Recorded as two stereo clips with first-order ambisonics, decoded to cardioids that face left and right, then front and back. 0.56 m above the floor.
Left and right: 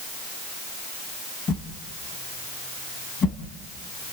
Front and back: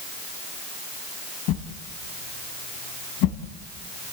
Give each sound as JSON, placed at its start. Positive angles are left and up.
{"t": 1.5, "sound": "a whoosh", "azimuth_deg": 25, "distance_m": 2.0}